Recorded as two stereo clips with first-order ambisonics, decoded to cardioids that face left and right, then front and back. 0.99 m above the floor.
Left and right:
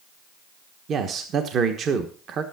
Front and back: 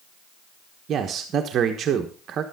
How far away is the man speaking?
About 1.1 m.